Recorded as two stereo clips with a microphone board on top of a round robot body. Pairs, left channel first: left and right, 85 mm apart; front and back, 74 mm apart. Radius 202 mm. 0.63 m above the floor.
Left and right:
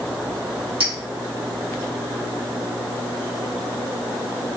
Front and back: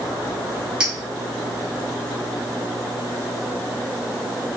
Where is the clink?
100° right, 2.5 m.